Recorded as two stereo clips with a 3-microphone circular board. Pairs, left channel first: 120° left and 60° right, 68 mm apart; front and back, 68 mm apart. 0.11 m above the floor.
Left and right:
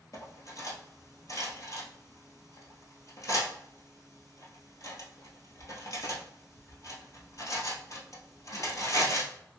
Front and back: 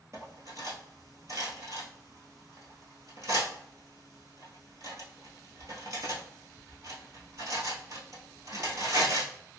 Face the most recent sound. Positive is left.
turn(degrees=150)